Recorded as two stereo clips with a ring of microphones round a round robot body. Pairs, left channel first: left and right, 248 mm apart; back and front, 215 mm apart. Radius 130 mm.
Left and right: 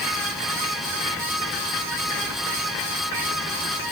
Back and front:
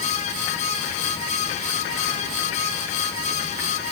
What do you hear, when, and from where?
Only background noise.